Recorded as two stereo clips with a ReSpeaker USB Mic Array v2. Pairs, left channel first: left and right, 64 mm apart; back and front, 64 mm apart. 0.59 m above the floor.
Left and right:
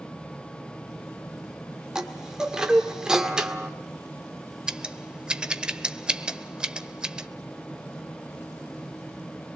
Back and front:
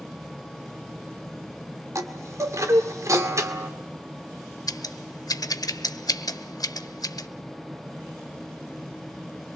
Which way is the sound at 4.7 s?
165° right.